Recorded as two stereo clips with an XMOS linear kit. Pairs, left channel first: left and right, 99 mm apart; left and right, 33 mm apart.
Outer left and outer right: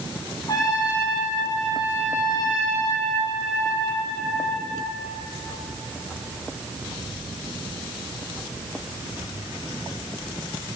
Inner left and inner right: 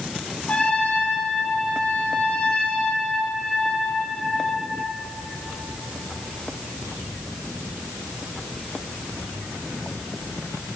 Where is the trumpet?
45° left (ahead or behind), 5.5 m.